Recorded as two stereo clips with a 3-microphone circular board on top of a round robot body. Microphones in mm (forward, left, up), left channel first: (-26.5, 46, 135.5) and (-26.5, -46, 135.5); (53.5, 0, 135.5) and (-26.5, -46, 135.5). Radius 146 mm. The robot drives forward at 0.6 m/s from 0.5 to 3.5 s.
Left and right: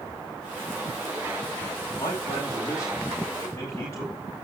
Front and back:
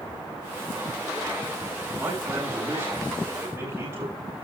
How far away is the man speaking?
About 5.5 m.